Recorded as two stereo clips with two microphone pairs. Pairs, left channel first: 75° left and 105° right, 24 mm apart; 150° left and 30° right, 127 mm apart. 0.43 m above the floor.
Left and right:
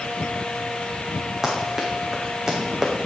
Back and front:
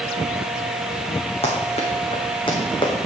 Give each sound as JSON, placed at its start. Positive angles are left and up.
{"t": 1.4, "sound": "running footsteps", "azimuth_deg": -170, "distance_m": 2.5}